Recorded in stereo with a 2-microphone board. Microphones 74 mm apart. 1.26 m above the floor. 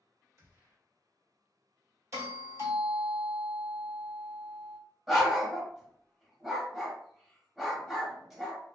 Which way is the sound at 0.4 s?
45° right (ahead or behind).